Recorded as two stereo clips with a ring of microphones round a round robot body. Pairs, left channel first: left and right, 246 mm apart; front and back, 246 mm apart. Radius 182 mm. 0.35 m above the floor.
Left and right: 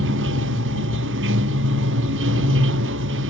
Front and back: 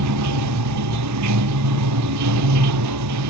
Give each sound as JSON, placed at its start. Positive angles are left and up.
{"t": 0.0, "sound": "running water", "azimuth_deg": -145}